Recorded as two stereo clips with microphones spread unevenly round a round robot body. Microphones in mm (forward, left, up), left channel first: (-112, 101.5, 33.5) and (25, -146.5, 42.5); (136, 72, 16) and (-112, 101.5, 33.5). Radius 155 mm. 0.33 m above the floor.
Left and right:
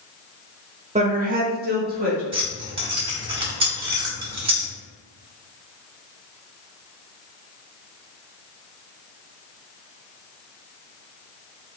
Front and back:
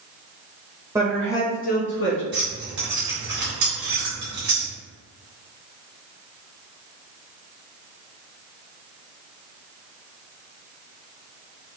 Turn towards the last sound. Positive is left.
turn(degrees=-135)